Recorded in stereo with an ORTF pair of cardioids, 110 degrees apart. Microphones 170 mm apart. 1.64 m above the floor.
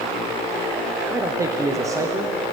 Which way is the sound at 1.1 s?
20° right.